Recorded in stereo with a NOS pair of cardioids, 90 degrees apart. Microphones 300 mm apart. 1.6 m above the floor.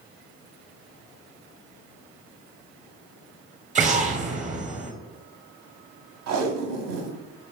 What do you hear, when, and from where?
3.8 s an explosion: 25° right, 0.7 m
6.3 s tape being pulled: 65° right, 0.7 m